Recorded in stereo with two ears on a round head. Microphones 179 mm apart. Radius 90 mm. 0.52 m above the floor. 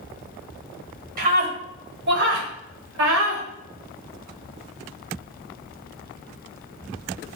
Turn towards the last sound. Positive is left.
turn(degrees=-70)  # may be behind; listen again after turning